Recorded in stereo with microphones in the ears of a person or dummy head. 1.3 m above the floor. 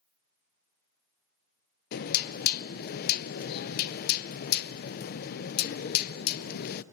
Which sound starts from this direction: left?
Knocking, at 1.9 s.